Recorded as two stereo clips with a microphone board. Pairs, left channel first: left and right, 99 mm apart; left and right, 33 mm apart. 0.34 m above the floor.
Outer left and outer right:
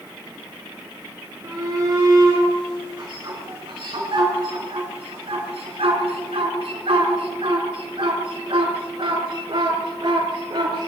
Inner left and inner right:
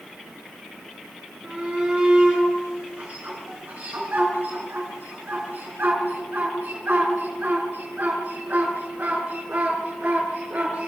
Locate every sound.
1.4 s a shout: 35° right (ahead or behind), 4.5 m; by 10.9 s 50° right (ahead or behind), 5.5 m